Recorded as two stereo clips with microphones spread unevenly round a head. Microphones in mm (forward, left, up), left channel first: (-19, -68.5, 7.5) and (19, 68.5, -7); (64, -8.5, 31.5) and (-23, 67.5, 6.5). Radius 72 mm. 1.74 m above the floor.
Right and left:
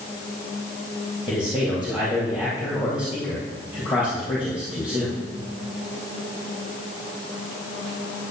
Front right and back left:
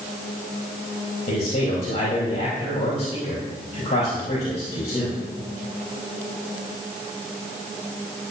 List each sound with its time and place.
1.3 s a man speaking: 10° right, 4 m